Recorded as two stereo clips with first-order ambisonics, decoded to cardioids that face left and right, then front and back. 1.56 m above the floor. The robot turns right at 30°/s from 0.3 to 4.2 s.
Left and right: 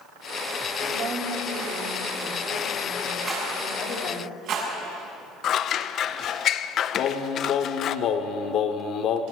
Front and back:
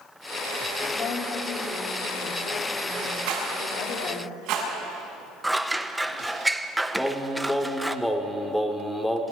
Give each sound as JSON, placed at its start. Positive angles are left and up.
{"t": 0.9, "sound": "a woman speaking", "azimuth_deg": -70, "distance_m": 4.0}
{"t": 3.3, "sound": "a rattle", "azimuth_deg": -160, "distance_m": 7.5}
{"t": 5.4, "sound": "scissors", "azimuth_deg": 95, "distance_m": 0.6}
{"t": 7.0, "sound": "singing", "azimuth_deg": 80, "distance_m": 1.4}